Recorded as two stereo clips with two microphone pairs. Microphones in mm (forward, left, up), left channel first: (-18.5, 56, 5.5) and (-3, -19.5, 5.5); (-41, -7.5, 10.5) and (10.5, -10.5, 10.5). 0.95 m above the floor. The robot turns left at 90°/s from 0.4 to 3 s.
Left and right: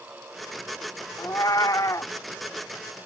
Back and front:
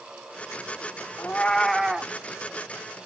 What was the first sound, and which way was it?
A cat meowing, 140° left.